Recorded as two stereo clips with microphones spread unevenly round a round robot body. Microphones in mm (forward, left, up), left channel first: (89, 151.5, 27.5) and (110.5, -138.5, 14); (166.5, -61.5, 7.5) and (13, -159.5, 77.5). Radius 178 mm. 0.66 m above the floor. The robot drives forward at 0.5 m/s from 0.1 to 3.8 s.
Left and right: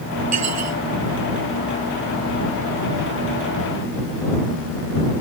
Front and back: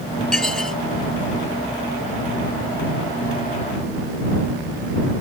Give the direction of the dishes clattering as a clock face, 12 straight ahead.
2 o'clock.